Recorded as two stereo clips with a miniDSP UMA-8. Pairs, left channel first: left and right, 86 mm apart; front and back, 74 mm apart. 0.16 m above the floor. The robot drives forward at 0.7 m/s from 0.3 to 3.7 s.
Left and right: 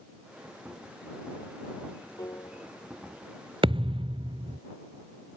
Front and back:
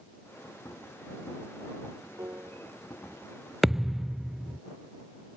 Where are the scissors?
I don't hear scissors.